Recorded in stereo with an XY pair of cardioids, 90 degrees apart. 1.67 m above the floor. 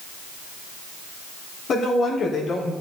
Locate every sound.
1.7 s a woman speaking: 65° left, 3.5 m; by 2.7 s 70° left, 5 m